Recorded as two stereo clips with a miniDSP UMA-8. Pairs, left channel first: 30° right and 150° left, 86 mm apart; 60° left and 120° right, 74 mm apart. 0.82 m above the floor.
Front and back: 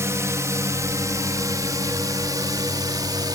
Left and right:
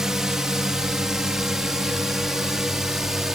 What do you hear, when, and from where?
0.0 s a drone: 165° left; by 3.4 s 160° left